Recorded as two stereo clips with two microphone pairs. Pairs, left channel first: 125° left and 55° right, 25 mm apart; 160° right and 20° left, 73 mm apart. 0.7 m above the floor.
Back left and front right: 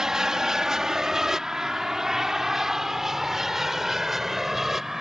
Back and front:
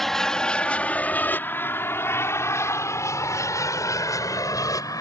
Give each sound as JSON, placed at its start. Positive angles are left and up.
{"t": 0.0, "sound": "an aircraft", "azimuth_deg": -80}